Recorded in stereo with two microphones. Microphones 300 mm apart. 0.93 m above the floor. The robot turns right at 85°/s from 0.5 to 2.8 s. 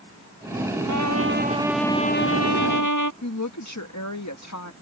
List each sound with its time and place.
0.9 s a trumpet: 75° right; by 3.1 s 90° left
3.2 s a woman speaking: 65° left (ahead or behind)